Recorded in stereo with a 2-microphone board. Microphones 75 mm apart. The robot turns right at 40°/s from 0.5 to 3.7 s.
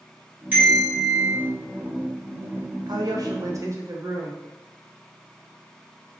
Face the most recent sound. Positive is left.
turn(degrees=-40)